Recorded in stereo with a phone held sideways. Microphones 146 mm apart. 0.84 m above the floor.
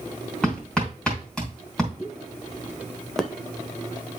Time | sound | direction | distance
0.4 | hammering | 5° left (ahead or behind) | 3 m
2.0 | a pop | 5° left (ahead or behind) | 0.9 m